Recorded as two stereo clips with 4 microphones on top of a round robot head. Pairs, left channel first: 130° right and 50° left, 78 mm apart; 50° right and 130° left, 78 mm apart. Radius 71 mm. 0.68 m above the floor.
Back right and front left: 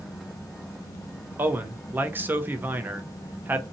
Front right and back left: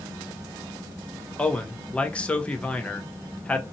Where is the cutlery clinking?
No cutlery clinking in this recording.